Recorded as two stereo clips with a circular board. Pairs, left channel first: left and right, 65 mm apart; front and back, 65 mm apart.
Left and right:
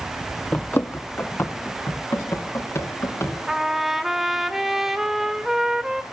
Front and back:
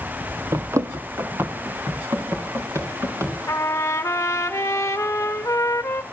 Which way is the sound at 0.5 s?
150° left.